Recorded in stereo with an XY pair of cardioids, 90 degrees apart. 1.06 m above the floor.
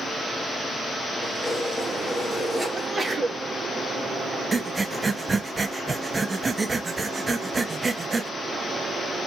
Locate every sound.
1.2 s keys jangling: 20° right, 2 m
2.7 s a sneeze: 30° right, 1.4 m
4.5 s breathing: 30° right, 0.7 m